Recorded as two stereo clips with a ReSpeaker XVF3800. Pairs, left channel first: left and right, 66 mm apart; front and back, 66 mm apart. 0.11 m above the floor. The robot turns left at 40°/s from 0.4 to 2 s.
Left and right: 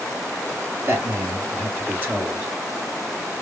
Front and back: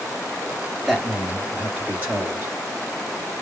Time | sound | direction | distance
0.9 | a man speaking | 95° right | 2.0 m